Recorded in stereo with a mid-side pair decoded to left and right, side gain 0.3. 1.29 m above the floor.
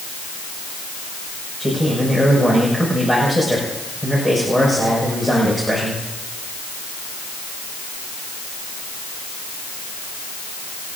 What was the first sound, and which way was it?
A man speaking, straight ahead.